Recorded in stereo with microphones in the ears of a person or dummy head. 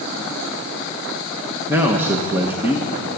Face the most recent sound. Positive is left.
turn(degrees=-10)  # may be behind; listen again after turning